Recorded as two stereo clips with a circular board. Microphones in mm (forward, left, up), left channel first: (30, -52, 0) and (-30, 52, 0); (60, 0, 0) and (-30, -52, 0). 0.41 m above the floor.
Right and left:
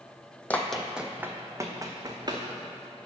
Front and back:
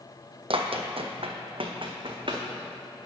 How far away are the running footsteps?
About 0.8 m.